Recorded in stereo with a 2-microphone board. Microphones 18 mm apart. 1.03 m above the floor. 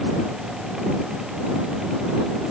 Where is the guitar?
No guitar in this recording.